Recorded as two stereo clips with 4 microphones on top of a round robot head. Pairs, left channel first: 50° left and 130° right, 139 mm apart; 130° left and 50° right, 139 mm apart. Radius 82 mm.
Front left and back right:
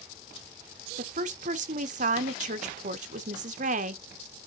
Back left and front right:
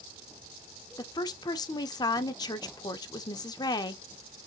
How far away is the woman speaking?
About 0.7 m.